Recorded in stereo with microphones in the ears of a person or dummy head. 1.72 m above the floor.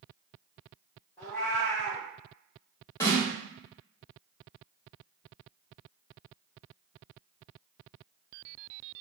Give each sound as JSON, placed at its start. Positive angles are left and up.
{"t": 1.2, "sound": "a cat meowing", "side_deg": 10, "distance_m": 0.9}
{"t": 3.0, "sound": "a snare drum", "side_deg": 15, "distance_m": 1.1}